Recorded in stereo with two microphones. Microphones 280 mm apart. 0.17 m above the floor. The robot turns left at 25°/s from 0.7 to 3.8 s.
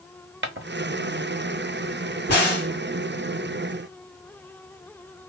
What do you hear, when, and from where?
0.4 s footsteps: 45° right (ahead or behind), 0.7 m
2.3 s a crack: 35° left (ahead or behind), 2.5 m; by 2.7 s 40° left (ahead or behind), 2.5 m